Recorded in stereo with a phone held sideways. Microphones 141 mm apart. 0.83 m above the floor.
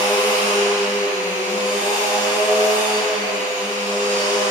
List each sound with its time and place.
0.0 s a machine running: 70° right (ahead or behind), 1.5 m